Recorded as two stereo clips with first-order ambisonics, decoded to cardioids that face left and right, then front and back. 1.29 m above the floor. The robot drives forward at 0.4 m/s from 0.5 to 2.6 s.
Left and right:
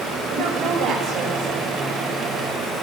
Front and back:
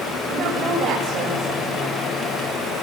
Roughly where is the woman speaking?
Behind right.